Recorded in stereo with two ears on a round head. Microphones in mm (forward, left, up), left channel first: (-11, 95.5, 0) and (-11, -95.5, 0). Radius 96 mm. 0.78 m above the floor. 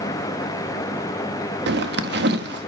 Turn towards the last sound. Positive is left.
turn(degrees=-55)  # may be behind; listen again after turning